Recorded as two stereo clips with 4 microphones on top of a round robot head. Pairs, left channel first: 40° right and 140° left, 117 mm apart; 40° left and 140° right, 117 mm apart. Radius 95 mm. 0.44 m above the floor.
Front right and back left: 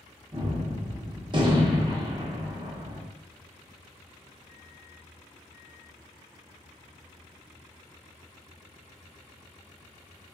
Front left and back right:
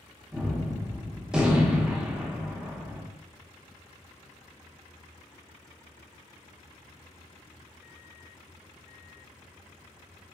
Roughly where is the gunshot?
Behind left.